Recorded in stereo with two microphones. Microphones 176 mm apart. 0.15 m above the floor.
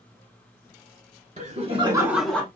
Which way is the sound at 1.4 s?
50° right (ahead or behind).